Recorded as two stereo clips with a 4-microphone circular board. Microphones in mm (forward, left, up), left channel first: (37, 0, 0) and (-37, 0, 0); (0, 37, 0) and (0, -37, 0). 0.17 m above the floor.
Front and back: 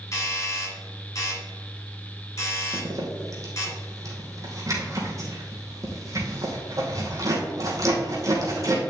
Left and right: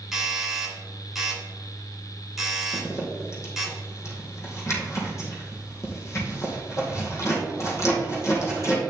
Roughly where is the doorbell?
Ahead.